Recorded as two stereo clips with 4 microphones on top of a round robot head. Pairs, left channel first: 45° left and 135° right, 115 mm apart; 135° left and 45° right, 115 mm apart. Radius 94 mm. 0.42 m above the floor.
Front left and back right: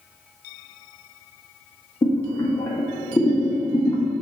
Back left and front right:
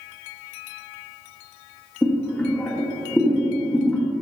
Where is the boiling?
65° left, 1.5 m.